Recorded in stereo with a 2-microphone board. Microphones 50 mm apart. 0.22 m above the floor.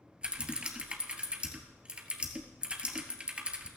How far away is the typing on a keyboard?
About 1.2 m.